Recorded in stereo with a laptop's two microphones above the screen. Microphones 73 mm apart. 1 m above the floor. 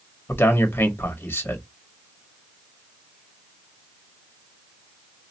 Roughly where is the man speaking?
Left.